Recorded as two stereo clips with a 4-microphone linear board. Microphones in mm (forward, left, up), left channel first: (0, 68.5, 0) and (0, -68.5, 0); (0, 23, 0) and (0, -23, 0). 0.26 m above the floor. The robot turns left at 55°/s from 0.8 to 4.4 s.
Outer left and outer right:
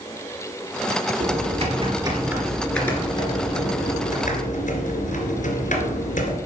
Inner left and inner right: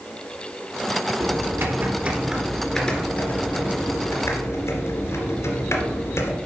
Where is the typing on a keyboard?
105° right, 2 m; by 6.3 s 80° left, 2 m.